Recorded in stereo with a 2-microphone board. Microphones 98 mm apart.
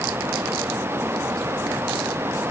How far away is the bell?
I don't hear a bell.